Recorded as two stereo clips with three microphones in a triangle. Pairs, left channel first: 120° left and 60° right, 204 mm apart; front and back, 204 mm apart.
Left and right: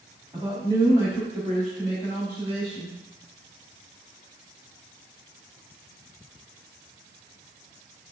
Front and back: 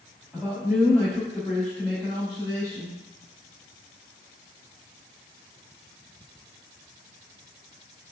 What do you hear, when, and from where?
0.3 s a man speaking: 80° right, 1.1 m; by 3.0 s 80° left, 1.3 m